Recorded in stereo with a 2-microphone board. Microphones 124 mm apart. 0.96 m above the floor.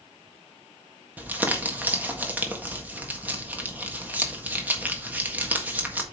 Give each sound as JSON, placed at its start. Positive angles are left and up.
{"t": 1.2, "sound": "crumpling", "side_deg": -15, "distance_m": 1.5}